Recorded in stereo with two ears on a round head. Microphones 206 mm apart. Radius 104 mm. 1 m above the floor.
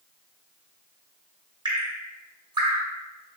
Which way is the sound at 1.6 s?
20° right (ahead or behind).